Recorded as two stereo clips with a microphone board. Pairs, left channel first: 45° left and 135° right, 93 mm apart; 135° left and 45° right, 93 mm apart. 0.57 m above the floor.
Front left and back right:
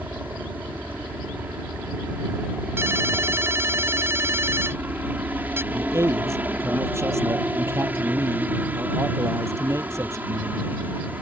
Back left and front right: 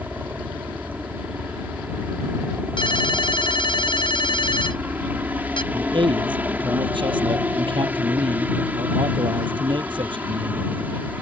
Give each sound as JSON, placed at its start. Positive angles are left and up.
{"t": 0.0, "sound": "a helicopter", "azimuth_deg": -90}
{"t": 2.8, "sound": "a ringtone", "azimuth_deg": 160}
{"t": 5.7, "sound": "a man speaking", "azimuth_deg": -75}